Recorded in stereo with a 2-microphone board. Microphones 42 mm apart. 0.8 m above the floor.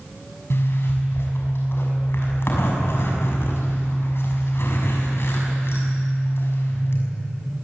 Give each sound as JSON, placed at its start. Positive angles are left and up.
{"t": 0.5, "sound": "a zipper", "side_deg": 60, "distance_m": 6.5}